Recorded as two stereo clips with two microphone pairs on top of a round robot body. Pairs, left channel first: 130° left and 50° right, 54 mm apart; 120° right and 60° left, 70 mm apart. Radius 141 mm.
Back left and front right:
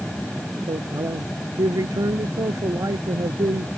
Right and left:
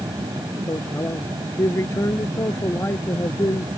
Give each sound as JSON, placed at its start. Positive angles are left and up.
{"t": 0.7, "sound": "a man speaking", "azimuth_deg": -65}